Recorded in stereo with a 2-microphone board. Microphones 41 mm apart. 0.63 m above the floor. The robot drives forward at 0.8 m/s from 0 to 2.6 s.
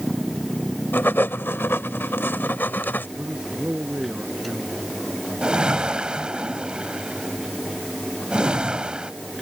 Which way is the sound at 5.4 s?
30° right (ahead or behind).